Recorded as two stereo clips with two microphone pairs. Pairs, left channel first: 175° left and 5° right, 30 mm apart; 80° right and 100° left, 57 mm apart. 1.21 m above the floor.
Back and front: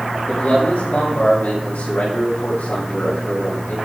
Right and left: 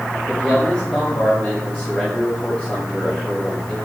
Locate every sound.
0.3 s a man speaking: 155° right, 7 m